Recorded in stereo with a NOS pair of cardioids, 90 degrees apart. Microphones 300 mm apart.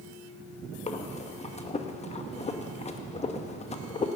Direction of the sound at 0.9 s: 20° left.